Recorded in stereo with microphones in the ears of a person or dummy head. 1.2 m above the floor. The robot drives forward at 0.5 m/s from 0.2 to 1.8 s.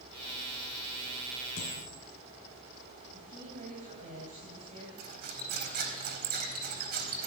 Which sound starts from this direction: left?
A dropped coin, at 1.6 s.